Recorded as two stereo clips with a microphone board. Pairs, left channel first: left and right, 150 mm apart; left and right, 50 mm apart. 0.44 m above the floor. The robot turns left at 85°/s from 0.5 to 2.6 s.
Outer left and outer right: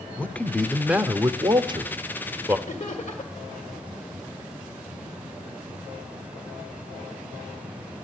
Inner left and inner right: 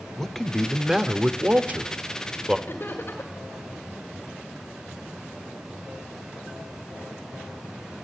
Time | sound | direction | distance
0.2 | a man speaking | 20° left | 0.8 m
2.7 | laughter | 50° left (ahead or behind) | 1.7 m